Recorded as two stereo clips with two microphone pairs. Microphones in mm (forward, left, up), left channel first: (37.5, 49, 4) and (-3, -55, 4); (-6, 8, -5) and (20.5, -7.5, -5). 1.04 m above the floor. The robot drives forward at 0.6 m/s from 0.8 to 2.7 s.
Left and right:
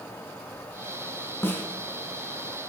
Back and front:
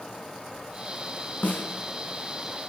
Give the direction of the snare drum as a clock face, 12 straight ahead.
7 o'clock.